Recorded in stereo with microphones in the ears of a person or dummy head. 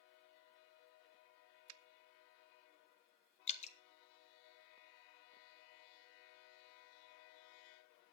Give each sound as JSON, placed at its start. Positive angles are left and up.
{"t": 1.7, "sound": "a finger snap", "side_deg": -85, "distance_m": 0.8}
{"t": 3.5, "sound": "dripping", "side_deg": 40, "distance_m": 1.1}